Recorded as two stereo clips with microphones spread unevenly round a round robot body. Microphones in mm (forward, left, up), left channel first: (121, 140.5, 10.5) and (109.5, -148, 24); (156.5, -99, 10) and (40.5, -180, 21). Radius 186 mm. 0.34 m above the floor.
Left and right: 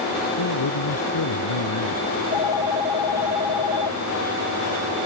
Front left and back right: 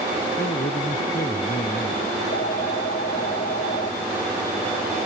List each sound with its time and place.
0.4 s a man speaking: 85° left
2.1 s a phone ringing: 100° left